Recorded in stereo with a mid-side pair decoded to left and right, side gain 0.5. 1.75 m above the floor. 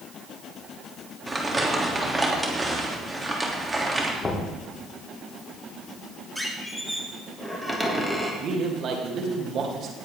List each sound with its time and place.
1.3 s crumpling: 20° right, 3 m
4.2 s knocking: 25° left, 3 m
6.3 s a squeak: straight ahead, 3 m
8.4 s a man speaking: 55° right, 3 m